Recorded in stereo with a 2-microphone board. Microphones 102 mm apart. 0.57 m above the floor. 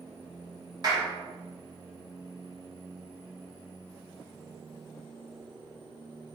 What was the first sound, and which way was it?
A clap, 40° right (ahead or behind).